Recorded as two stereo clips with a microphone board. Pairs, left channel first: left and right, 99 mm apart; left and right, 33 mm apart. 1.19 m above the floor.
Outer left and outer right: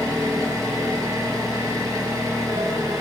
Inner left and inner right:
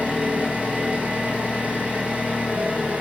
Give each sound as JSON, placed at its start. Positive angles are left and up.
{"t": 0.0, "sound": "an engine running", "side_deg": -40, "distance_m": 0.9}